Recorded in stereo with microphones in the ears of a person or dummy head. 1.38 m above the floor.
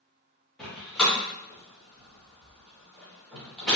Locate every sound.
0.6 s a door slam: 5° left (ahead or behind), 1.4 m